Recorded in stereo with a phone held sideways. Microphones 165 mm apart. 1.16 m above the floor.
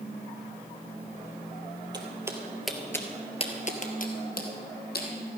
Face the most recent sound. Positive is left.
turn(degrees=65)  # may be behind; listen again after turning